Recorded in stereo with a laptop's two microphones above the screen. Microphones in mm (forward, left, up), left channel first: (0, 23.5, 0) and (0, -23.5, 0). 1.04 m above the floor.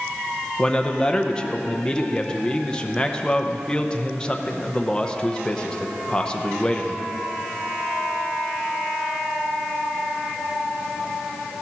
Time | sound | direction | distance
0.6 | a man speaking | 20° left (ahead or behind) | 0.7 m